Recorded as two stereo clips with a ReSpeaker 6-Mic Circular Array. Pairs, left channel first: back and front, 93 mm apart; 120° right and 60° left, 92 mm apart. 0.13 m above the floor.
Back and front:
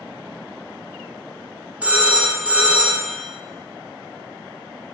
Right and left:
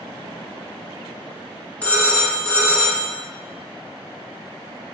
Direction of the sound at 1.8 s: 60° right.